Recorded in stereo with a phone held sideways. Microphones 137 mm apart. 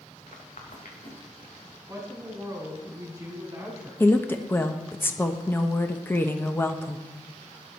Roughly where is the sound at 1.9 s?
Right.